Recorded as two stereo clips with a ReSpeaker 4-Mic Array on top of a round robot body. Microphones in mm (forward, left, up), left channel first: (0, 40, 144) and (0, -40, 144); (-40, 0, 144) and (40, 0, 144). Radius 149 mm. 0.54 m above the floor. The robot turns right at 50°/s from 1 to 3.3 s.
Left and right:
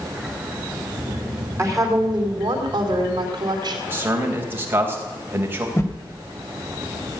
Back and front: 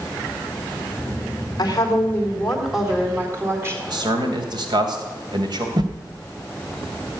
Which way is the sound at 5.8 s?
35° left.